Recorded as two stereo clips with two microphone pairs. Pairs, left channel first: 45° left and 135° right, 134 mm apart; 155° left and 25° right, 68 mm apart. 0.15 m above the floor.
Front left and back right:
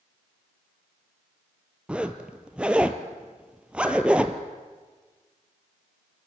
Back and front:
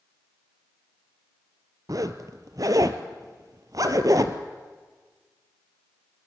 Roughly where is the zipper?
Ahead right.